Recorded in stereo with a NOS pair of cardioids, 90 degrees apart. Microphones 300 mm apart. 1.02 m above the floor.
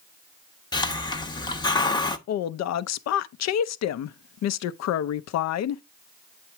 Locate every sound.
0.7 s a hiss: 15° left, 0.8 m
2.3 s a woman speaking: 60° left, 0.6 m